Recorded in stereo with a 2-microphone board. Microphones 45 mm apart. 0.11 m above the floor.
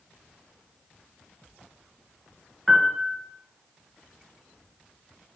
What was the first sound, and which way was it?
A piano, centre (ahead or behind).